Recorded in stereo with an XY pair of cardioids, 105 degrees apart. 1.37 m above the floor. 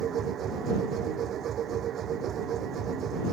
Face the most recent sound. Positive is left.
turn(degrees=-60)